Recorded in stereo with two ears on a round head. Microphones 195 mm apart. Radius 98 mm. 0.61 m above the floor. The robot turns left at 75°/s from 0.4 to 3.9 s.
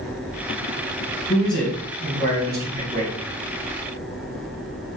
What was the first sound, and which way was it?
A man speaking, 20° left.